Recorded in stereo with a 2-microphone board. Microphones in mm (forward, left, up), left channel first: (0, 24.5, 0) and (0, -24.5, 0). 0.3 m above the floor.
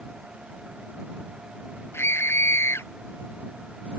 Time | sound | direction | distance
1.9 | a scream | 55° left (ahead or behind) | ?